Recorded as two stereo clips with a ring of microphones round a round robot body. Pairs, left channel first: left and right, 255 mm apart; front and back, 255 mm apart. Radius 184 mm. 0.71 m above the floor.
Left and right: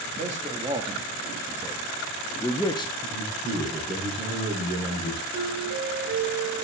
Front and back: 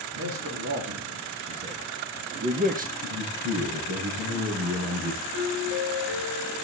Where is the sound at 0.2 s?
150° right, 2.0 m; by 2.9 s 145° left, 1.3 m.